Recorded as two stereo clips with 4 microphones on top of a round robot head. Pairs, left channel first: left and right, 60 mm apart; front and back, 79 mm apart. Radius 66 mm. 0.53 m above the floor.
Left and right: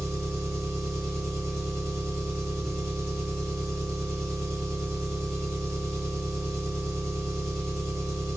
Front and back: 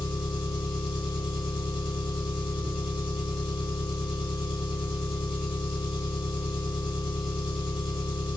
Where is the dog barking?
No dog barking in this recording.